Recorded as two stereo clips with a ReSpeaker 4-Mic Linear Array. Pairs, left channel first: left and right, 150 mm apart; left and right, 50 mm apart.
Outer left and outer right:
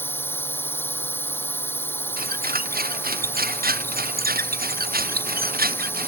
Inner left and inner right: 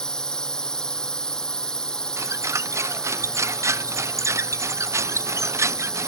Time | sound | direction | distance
0.0 | a drone | 15° left (ahead or behind) | ?
2.2 | a squeak | 80° right | ?